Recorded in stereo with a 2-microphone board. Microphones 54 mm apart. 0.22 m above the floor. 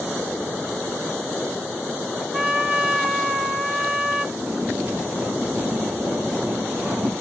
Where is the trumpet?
20° right (ahead or behind), 1.5 m.